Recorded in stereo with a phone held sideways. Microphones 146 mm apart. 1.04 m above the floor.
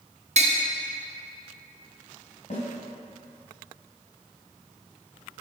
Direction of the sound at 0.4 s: 50° right (ahead or behind).